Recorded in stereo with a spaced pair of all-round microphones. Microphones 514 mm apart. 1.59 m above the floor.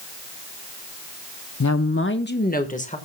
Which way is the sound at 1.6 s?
35° left (ahead or behind).